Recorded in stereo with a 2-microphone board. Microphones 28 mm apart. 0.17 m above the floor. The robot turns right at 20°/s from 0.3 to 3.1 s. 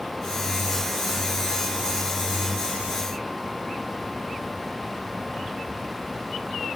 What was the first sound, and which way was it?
Only background noise.